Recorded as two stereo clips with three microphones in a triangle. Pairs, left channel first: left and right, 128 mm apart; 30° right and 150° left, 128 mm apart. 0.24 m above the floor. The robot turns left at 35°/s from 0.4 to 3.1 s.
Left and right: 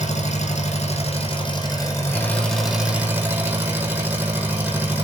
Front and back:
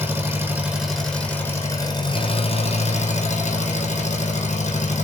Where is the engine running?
80° left, 4.5 m; by 5.0 s 15° right, 4.5 m.